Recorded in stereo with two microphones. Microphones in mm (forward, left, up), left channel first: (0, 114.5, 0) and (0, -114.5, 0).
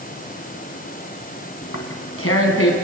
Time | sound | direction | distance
1.6 | tearing paper | 80° left | 3 m